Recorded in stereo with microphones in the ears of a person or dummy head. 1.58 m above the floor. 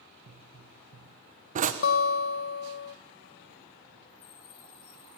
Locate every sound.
0.3 s a pop: 45° right (ahead or behind), 1.3 m
1.8 s a guitar: 65° left (ahead or behind), 0.7 m